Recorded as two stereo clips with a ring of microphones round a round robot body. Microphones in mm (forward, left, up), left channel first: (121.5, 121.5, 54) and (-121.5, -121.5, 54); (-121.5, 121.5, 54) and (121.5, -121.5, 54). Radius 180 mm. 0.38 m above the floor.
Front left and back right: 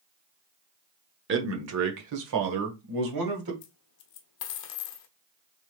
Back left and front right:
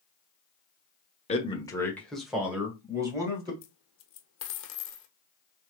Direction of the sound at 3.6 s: 80° left.